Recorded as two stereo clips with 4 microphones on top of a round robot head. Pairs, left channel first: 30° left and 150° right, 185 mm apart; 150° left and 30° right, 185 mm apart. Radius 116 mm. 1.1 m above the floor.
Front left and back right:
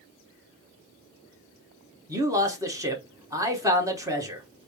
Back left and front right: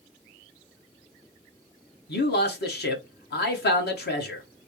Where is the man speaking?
140° left, 1.3 m.